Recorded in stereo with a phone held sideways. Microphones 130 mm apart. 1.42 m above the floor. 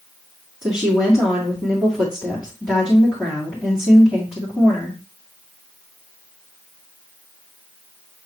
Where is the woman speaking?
Centre (ahead or behind), 2.5 m.